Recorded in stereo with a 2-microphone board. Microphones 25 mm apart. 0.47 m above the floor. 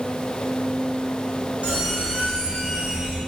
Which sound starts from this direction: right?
A squeak, at 1.6 s.